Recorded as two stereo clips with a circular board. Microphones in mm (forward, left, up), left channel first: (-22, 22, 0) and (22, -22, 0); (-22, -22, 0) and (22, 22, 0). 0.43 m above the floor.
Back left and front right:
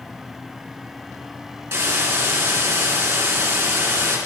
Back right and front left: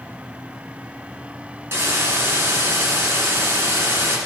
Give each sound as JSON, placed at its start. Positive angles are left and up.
{"t": 1.7, "sound": "a hiss", "azimuth_deg": 0, "distance_m": 2.5}